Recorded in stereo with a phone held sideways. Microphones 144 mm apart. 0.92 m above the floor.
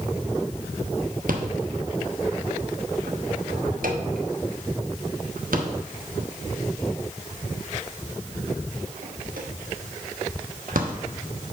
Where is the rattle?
85° right, 1.0 m.